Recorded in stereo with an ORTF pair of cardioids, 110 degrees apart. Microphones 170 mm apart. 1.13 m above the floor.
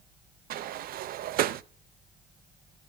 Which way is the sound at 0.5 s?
60° right.